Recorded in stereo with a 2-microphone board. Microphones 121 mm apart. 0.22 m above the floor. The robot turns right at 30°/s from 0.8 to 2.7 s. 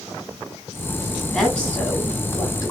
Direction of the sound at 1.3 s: 5° left.